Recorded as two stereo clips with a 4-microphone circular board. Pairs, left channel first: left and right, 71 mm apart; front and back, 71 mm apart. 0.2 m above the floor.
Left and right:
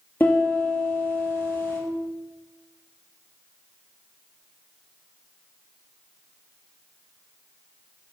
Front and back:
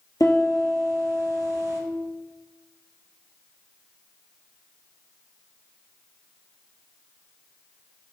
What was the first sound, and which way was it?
A piano, 25° left.